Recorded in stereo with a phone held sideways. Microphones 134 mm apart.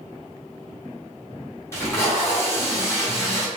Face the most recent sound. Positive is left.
turn(degrees=20)  # may be behind; listen again after turning